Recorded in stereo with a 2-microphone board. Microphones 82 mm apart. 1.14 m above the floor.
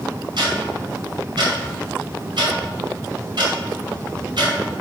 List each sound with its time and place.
0.4 s ticking: 70° right (ahead or behind), 3 m